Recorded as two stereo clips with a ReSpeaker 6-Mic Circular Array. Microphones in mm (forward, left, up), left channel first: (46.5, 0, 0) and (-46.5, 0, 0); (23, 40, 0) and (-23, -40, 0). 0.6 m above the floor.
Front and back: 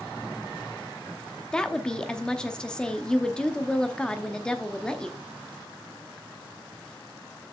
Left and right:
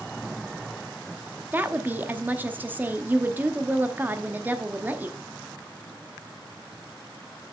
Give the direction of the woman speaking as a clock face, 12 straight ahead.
2 o'clock.